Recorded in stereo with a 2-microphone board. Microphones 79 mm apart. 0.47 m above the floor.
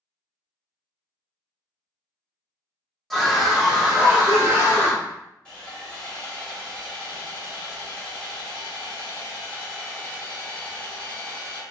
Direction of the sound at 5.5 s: 15° left (ahead or behind).